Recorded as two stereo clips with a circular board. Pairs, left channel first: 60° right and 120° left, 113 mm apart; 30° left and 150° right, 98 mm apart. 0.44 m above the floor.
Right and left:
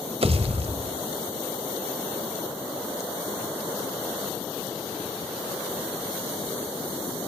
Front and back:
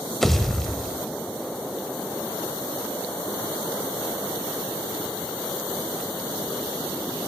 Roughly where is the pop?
Behind left.